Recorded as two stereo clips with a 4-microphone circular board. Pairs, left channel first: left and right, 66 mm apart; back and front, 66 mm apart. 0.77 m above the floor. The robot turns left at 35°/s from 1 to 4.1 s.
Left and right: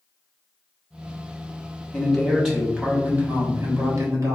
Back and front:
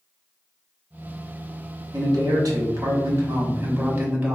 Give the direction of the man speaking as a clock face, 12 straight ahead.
11 o'clock.